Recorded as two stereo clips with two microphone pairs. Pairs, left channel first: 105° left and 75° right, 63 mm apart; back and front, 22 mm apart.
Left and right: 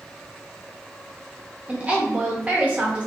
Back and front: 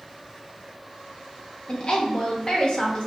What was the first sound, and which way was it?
A woman speaking, 140° right.